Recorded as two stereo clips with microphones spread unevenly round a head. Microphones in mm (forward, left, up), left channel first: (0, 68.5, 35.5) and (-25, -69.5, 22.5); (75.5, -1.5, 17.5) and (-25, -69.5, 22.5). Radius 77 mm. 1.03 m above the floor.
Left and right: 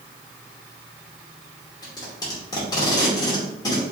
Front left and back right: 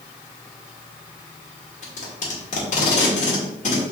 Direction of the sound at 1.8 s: 15° left.